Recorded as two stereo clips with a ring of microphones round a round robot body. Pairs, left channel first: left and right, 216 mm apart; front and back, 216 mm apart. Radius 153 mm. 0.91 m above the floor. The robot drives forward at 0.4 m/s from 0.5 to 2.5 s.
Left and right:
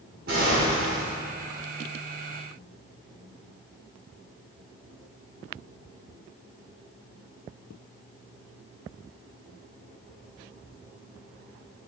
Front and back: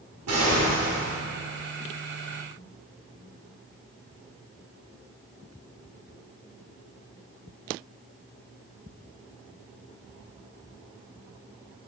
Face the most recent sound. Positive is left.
turn(degrees=-165)